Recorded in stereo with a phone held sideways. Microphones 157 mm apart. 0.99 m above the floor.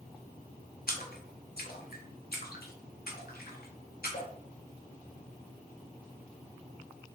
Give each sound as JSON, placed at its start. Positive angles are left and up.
{"t": 0.9, "sound": "a splash", "side_deg": 75, "distance_m": 0.9}